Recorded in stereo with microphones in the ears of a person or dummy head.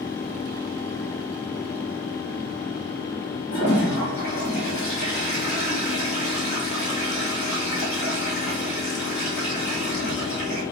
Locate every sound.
3.5 s a toilet flushing: 55° left (ahead or behind), 2 m